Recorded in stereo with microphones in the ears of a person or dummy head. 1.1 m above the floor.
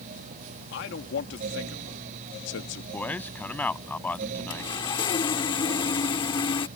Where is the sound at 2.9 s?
10° left (ahead or behind).